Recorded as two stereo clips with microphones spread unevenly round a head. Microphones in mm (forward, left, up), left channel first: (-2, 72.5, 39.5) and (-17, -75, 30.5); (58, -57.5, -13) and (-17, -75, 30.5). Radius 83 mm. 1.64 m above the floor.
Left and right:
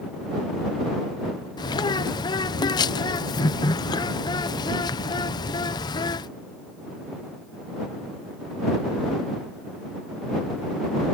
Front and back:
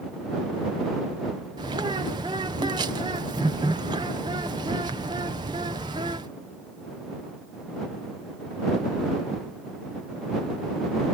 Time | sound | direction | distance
1.6 | a bird | 150° left | ?